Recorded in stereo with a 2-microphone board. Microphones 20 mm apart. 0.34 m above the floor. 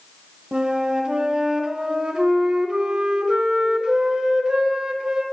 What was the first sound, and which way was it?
A flute, 45° right (ahead or behind).